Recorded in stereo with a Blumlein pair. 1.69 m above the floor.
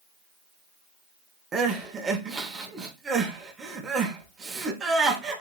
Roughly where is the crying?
Ahead.